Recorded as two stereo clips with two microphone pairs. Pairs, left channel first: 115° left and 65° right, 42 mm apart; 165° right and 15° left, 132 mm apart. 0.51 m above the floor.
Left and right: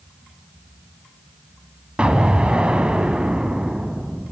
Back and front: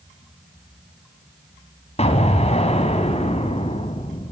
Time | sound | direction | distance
2.0 | an explosion | 130° right | 2.0 m